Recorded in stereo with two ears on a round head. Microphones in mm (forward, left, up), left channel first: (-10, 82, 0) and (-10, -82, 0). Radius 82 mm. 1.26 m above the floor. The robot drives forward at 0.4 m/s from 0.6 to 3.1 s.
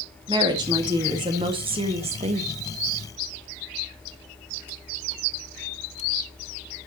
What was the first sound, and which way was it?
A woman speaking, 25° right (ahead or behind).